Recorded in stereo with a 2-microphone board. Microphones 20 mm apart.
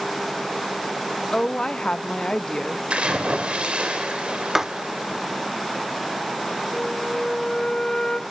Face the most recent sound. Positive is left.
turn(degrees=35)  # may be behind; listen again after turning